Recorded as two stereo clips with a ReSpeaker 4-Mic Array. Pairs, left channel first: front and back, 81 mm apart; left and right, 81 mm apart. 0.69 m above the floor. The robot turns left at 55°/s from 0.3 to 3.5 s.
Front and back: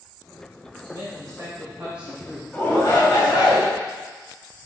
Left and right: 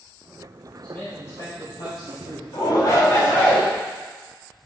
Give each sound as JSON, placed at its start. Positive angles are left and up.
{"t": 0.8, "sound": "a man speaking", "azimuth_deg": 170, "distance_m": 2.5}
{"t": 2.5, "sound": "a shout", "azimuth_deg": 75, "distance_m": 4.0}